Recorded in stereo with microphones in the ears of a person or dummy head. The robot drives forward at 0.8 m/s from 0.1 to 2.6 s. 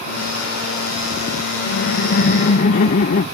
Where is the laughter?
65° left (ahead or behind); by 3.2 s 45° left (ahead or behind).